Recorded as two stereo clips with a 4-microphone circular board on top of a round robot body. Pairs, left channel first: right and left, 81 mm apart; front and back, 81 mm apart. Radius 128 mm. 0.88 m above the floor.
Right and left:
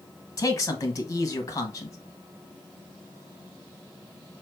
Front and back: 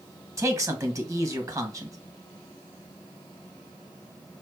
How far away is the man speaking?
About 1.6 m.